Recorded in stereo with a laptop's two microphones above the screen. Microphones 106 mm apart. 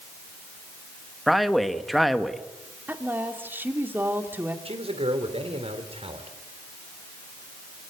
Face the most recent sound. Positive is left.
turn(degrees=-70)  # may be behind; listen again after turning